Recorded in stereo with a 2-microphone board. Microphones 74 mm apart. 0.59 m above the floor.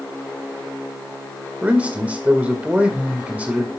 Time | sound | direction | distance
1.6 | a man speaking | 20° right (ahead or behind) | 1.8 m